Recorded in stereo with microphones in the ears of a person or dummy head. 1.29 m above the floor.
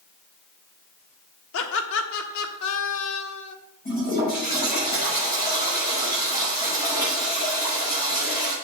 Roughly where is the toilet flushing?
Left.